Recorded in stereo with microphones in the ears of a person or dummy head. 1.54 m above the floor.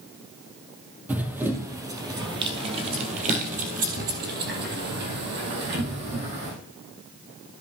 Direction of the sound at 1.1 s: 10° right (ahead or behind).